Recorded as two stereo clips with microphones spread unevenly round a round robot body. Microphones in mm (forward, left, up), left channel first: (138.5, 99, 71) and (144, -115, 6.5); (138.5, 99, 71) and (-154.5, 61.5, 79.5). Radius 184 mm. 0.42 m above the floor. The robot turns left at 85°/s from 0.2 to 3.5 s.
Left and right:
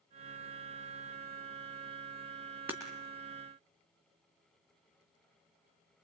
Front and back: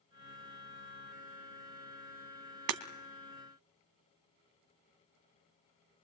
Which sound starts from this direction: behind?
Breaking glass, at 2.7 s.